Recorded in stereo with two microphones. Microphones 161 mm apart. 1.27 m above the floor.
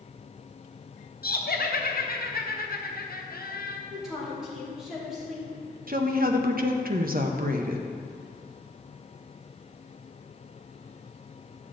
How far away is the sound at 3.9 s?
About 3 m.